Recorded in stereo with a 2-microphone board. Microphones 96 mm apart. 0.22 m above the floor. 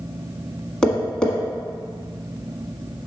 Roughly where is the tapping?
Centre.